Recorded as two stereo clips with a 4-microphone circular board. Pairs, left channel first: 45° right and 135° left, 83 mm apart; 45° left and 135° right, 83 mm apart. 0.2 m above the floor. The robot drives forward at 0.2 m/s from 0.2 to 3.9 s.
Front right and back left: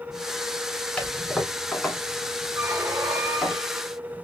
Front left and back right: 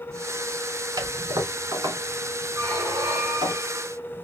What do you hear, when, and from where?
1.0 s a toilet flushing: 120° right, 1.5 m; by 3.5 s 135° right, 1.7 m
2.6 s a squeak: 170° left, 1.5 m